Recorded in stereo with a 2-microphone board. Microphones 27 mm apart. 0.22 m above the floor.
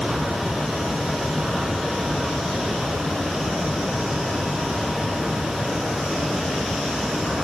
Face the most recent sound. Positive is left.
No sound to turn to.